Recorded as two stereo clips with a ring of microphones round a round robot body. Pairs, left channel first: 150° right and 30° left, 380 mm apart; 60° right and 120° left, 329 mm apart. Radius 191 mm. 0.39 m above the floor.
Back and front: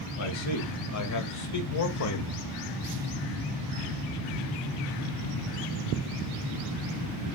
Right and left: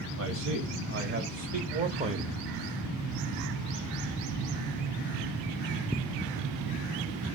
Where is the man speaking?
170° left, 2.5 m; by 2.5 s 165° right, 1.7 m.